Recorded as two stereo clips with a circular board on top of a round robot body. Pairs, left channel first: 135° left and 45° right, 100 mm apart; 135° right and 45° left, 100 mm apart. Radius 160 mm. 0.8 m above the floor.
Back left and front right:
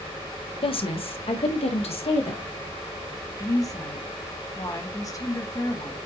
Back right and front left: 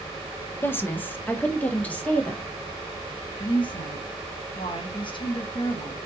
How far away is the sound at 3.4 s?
About 1.6 m.